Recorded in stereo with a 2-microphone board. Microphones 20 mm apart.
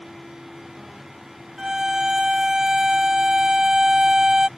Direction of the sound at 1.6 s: 25° right (ahead or behind).